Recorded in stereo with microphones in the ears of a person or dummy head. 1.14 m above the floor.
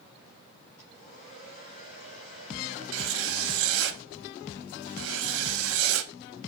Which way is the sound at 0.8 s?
50° left (ahead or behind).